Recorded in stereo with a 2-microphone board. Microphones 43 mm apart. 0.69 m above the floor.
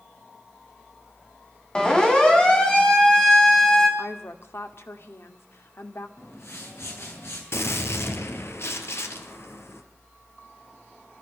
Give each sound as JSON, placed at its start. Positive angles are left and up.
{"t": 1.8, "sound": "a siren", "side_deg": 15, "distance_m": 4.5}
{"t": 4.0, "sound": "a woman speaking", "side_deg": 65, "distance_m": 2.0}
{"t": 6.2, "sound": "a whoosh", "side_deg": 70, "distance_m": 7.0}
{"t": 7.5, "sound": "a gunshot", "side_deg": 65, "distance_m": 2.5}